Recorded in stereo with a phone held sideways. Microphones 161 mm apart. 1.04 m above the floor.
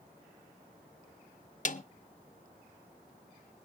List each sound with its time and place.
1.6 s a snare drum: 50° left (ahead or behind), 0.7 m